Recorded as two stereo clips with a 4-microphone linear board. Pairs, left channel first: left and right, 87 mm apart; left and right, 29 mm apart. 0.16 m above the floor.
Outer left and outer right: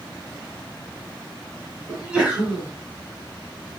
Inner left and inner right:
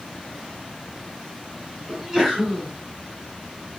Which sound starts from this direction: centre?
A sneeze, at 1.9 s.